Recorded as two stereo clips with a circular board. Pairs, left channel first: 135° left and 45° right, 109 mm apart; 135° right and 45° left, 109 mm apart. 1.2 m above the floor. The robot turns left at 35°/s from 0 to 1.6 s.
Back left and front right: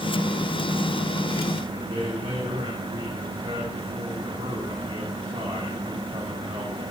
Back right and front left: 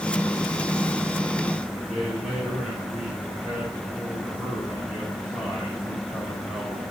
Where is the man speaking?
35° right, 5.5 m.